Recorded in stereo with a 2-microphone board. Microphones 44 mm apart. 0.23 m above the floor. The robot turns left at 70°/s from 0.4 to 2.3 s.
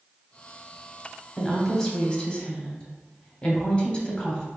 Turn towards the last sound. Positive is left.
turn(degrees=25)  # may be behind; listen again after turning